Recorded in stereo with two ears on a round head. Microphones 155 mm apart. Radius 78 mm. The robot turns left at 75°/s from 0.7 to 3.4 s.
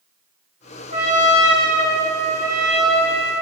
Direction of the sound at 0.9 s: 40° right.